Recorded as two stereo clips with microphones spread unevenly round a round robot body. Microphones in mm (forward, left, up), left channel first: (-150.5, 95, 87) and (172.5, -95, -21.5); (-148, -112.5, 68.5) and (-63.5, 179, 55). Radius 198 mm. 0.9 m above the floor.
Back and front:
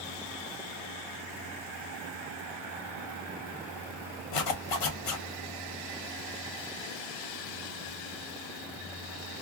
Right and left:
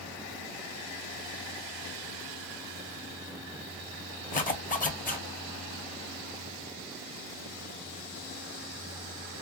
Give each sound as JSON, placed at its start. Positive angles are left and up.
{"t": 4.3, "sound": "a zipper", "azimuth_deg": -170, "distance_m": 1.3}